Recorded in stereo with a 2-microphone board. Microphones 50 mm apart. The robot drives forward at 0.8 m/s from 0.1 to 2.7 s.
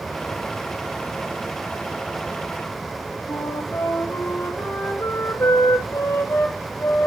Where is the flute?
85° left, 1.3 m.